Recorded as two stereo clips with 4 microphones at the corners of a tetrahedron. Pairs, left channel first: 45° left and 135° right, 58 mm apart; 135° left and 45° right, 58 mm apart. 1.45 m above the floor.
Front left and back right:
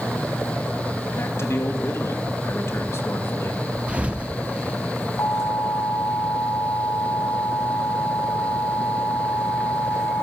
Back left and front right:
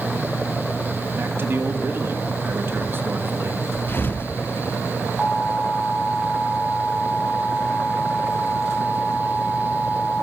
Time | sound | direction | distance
1.2 | a man speaking | 5° left | 2.5 m
3.9 | a thud | 170° left | 1.2 m
5.2 | an alarm | 40° left | 4 m